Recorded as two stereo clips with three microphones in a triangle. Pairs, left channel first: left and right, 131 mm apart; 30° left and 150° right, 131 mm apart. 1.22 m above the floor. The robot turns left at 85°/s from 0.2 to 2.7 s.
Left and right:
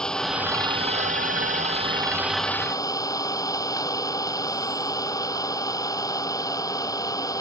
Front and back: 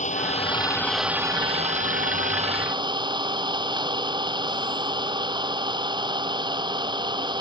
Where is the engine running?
5° left; by 7.4 s 155° left.